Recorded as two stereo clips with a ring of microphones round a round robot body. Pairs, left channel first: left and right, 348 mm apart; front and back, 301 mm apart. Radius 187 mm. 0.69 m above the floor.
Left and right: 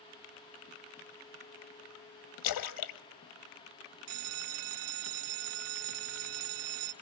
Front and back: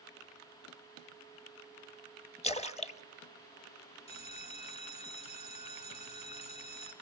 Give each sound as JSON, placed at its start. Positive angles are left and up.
{"t": 2.4, "sound": "a splash", "azimuth_deg": 70, "distance_m": 1.3}
{"t": 4.1, "sound": "a bell", "azimuth_deg": -75, "distance_m": 0.9}